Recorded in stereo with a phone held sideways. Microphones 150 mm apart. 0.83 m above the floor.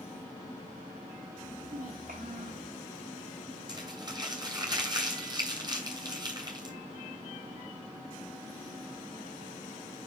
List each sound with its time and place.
1.4 s a child speaking: 65° right (ahead or behind), 0.9 m
3.7 s crumpling: 30° right (ahead or behind), 3 m